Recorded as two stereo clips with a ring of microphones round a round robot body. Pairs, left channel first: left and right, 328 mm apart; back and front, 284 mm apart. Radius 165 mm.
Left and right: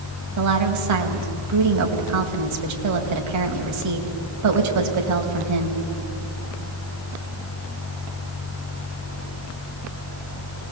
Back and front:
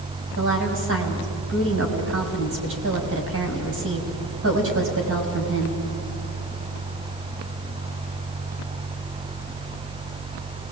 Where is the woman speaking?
50° right, 3.5 m.